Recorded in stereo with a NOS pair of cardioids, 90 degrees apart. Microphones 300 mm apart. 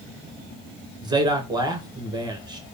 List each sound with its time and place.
1.0 s a man speaking: 15° right, 1.2 m